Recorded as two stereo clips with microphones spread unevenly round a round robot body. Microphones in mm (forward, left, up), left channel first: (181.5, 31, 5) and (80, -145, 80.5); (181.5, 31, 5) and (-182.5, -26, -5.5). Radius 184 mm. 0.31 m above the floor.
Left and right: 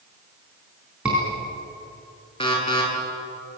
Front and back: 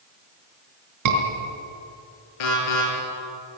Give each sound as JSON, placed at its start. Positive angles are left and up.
{"t": 1.1, "sound": "a scream", "azimuth_deg": 150, "distance_m": 4.5}
{"t": 2.4, "sound": "an alarm", "azimuth_deg": 0, "distance_m": 9.0}